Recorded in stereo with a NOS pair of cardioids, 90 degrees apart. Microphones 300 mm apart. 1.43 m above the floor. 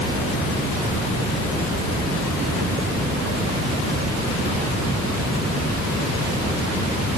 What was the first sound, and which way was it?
Only background noise.